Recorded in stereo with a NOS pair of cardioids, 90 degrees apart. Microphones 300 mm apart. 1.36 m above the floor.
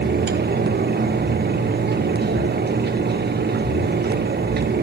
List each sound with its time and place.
0.0 s a fan: 35° right, 1.6 m